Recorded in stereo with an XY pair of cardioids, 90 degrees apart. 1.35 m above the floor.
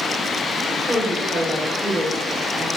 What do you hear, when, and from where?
0.7 s a woman speaking: 50° right, 1.9 m